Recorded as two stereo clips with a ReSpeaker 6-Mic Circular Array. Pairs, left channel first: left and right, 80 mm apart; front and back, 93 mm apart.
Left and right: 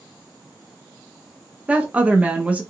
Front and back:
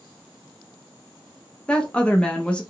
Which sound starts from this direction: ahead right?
A woman speaking, at 1.7 s.